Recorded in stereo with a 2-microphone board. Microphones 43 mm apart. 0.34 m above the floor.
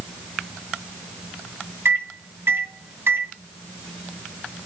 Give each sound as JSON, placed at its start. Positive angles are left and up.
{"t": 1.9, "sound": "a microwave", "side_deg": -60, "distance_m": 2.5}